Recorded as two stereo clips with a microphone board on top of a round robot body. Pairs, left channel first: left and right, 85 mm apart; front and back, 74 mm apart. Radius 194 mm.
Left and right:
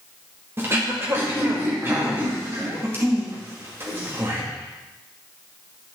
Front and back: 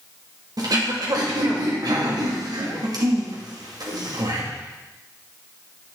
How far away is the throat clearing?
About 2 m.